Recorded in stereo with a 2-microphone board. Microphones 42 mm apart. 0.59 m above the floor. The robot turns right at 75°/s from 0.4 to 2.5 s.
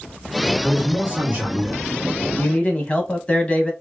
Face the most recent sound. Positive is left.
turn(degrees=25)  # may be behind; listen again after turning